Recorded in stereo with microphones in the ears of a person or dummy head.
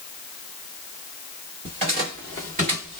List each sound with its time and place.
1.6 s footsteps: 35° right (ahead or behind), 1.9 m; by 3.0 s 30° right (ahead or behind), 1.9 m